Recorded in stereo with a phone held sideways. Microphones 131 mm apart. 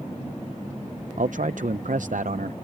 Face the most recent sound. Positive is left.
turn(degrees=-80)